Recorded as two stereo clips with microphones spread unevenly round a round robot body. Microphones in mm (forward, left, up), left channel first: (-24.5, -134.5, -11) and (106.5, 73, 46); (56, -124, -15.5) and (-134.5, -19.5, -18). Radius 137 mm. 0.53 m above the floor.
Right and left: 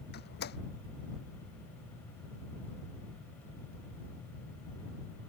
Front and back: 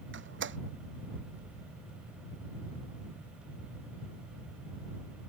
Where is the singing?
No singing in this recording.